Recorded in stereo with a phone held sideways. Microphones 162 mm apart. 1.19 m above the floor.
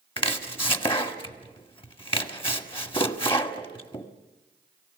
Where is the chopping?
35° left (ahead or behind), 1.5 m.